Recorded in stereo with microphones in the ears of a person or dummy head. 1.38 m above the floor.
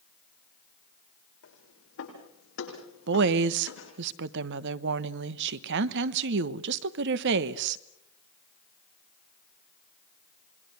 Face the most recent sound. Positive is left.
turn(degrees=-60)  # may be behind; listen again after turning